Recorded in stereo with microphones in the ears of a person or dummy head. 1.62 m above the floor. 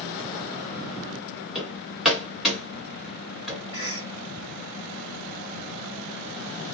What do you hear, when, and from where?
1.6 s hammering: 5° right (ahead or behind), 1.6 m
3.7 s a cough: 25° right (ahead or behind), 0.9 m